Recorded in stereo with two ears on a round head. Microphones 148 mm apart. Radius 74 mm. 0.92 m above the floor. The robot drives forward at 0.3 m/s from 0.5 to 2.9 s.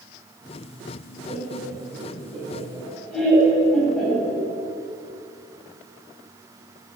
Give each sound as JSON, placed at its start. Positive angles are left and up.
{"t": 1.3, "sound": "laughter", "side_deg": 0, "distance_m": 5.0}